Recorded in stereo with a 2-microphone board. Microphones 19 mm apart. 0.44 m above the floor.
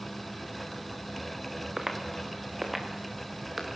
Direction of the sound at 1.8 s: 30° right (ahead or behind).